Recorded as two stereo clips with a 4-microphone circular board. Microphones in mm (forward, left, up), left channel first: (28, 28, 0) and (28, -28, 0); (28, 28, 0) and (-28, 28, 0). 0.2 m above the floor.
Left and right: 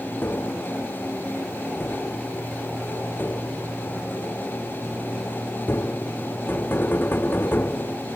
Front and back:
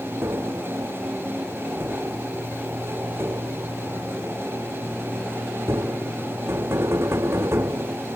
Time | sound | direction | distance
0.2 | tapping | 145° left | ?